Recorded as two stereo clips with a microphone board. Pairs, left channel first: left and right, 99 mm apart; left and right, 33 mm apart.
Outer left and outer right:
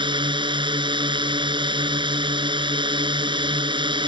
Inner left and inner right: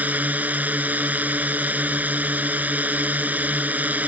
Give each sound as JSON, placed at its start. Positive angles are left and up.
{"t": 0.0, "sound": "a drone", "side_deg": -55}